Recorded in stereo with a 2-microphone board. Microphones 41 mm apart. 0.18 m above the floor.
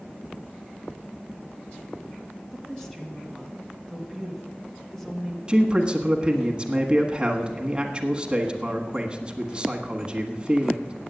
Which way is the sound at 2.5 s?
10° left (ahead or behind).